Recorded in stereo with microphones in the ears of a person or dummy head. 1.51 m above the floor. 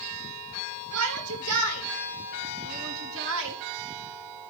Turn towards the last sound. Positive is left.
turn(degrees=-70)  # may be behind; listen again after turning